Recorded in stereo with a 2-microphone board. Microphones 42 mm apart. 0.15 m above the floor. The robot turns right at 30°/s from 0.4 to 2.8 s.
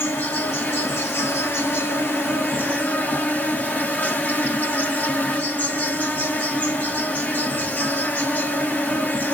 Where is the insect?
65° left, 1.3 m; by 9.3 s 135° left, 1.3 m.